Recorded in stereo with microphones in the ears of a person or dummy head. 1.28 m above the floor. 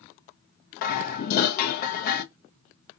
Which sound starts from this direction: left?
Dishes clattering, at 0.8 s.